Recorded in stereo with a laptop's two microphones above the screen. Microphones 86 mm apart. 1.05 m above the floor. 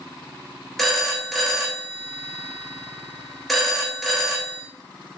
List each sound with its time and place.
0.8 s a phone ringing: centre (ahead or behind), 0.7 m